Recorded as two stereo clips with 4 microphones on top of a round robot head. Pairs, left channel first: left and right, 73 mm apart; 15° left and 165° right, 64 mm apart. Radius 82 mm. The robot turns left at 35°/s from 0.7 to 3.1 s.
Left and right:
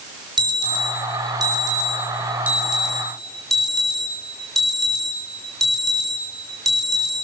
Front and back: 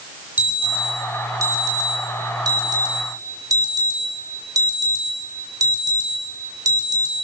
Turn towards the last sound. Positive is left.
turn(degrees=180)